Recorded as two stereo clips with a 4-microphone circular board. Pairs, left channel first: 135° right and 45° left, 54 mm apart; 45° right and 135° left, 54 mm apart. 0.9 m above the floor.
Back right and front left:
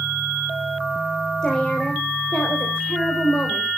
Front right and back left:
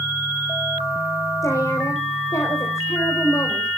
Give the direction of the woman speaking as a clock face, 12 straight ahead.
2 o'clock.